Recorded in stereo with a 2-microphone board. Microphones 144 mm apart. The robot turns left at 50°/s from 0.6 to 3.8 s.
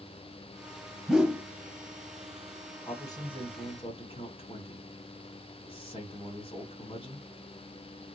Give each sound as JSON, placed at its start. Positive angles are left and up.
{"t": 1.1, "sound": "a whoosh", "side_deg": 0, "distance_m": 0.7}
{"t": 2.9, "sound": "a man speaking", "azimuth_deg": 145, "distance_m": 1.8}